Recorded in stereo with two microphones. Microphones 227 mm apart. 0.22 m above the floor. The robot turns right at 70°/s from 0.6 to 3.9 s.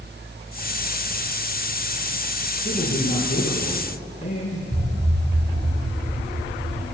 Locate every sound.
2.6 s a man speaking: 55° left, 4 m; by 4.6 s 145° left, 4 m
4.7 s an explosion: 50° right (ahead or behind), 2 m